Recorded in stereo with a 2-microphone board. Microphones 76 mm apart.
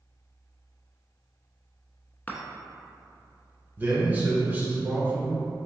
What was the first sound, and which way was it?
A chime, 25° left (ahead or behind).